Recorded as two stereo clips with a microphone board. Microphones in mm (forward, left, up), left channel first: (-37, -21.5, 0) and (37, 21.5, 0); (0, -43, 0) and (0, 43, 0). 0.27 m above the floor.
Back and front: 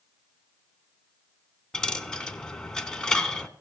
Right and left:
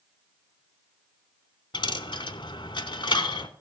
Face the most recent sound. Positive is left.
turn(degrees=-70)